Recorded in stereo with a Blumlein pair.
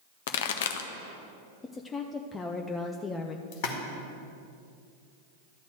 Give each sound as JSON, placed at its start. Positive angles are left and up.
{"t": 0.3, "sound": "a pop", "azimuth_deg": 55, "distance_m": 0.7}
{"t": 1.6, "sound": "a woman speaking", "azimuth_deg": 15, "distance_m": 0.6}
{"t": 3.5, "sound": "a splash", "azimuth_deg": 45, "distance_m": 1.7}